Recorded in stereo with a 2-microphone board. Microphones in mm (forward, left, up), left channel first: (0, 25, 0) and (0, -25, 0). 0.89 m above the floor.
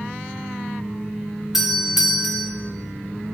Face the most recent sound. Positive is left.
turn(degrees=-10)  # may be behind; listen again after turning